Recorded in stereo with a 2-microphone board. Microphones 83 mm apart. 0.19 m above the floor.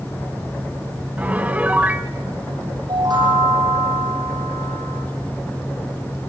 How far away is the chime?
About 7.5 m.